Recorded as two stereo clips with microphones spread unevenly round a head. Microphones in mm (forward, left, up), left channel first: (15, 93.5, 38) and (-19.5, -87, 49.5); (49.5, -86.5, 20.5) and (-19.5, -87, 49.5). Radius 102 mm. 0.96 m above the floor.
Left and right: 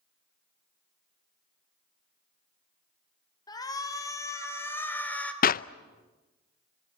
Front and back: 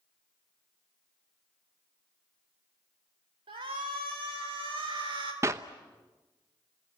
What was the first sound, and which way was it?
A shout, 150° left.